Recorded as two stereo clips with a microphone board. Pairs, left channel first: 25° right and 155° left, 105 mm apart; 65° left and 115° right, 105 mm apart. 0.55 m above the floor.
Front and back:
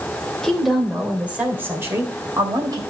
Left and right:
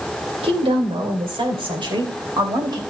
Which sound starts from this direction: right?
A woman speaking, at 0.4 s.